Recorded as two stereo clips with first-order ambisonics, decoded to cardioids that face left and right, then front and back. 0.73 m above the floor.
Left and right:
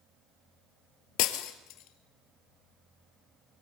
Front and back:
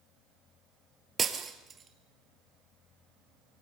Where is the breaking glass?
110° left, 1.7 m.